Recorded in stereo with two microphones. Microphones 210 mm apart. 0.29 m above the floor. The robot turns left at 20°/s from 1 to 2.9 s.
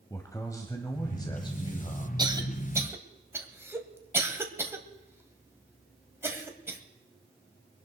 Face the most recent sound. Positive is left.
turn(degrees=-10)  # may be behind; listen again after turning